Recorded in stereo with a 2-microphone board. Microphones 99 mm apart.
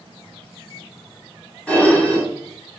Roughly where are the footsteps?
I don't hear footsteps.